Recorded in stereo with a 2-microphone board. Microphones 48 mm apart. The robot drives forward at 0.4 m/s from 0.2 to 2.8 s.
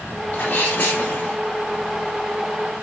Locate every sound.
0.3 s a sneeze: 35° left (ahead or behind), 1.7 m; by 1.4 s 30° left (ahead or behind), 2 m